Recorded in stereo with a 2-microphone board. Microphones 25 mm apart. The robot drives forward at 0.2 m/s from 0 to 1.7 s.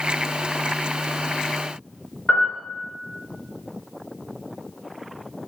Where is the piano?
30° left (ahead or behind), 1.6 m.